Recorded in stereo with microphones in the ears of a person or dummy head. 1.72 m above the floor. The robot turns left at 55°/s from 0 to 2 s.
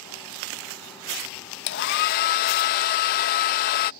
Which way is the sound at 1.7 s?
55° left (ahead or behind).